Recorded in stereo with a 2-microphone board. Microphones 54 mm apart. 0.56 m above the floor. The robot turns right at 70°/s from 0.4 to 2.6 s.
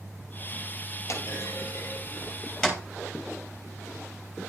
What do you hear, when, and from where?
1.1 s a clunk: 60° left (ahead or behind), 4 m; by 2.8 s 15° left (ahead or behind), 4 m